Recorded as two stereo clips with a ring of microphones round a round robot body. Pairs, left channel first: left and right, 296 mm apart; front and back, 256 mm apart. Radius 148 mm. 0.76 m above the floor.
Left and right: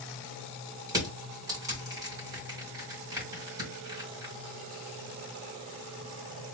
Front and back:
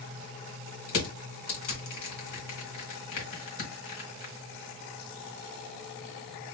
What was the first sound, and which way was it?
Crushing, 10° right.